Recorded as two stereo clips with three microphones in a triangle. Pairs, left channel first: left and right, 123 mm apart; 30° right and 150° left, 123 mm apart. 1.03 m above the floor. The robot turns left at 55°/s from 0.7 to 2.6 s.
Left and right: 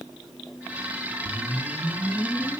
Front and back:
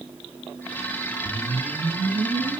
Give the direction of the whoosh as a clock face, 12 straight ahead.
4 o'clock.